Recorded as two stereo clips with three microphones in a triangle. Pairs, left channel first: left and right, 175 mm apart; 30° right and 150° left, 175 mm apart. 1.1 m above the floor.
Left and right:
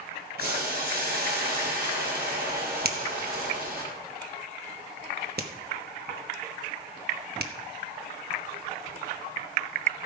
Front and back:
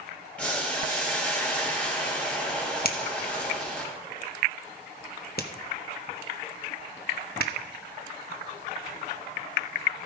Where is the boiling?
115° right, 4.5 m.